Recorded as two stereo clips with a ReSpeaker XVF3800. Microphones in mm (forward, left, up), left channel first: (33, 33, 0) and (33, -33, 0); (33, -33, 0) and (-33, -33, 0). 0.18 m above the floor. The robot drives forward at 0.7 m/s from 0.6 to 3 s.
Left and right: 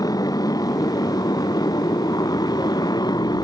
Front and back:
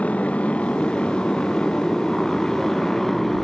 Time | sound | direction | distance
0.0 | a motorcycle | 70° left | ?